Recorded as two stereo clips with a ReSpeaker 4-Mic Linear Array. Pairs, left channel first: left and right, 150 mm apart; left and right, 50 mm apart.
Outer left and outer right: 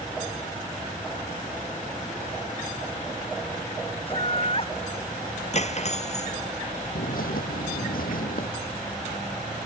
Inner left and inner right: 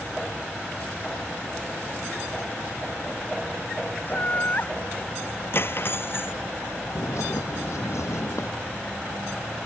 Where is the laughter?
40° left (ahead or behind).